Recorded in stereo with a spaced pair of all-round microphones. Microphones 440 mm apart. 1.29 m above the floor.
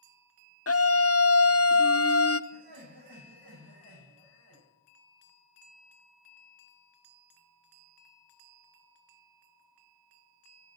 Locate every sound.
0.7 s a scream: 35° left (ahead or behind), 0.5 m
2.5 s laughter: 60° right (ahead or behind), 7.5 m